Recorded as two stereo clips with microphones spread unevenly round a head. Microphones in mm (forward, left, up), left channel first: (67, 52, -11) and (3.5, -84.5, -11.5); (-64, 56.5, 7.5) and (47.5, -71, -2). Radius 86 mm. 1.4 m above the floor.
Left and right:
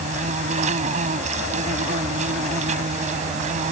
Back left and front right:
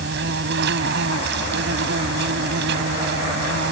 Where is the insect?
75° right.